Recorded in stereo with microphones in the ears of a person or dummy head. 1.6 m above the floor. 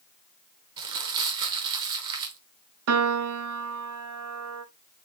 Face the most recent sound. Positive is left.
turn(degrees=-80)